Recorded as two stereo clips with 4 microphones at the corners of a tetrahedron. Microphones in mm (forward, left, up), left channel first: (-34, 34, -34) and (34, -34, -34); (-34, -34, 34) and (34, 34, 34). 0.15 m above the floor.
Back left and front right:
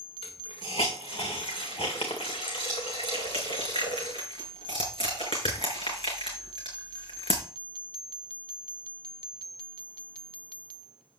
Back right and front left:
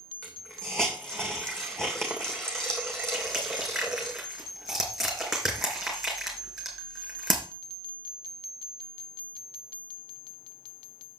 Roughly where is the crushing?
Behind left.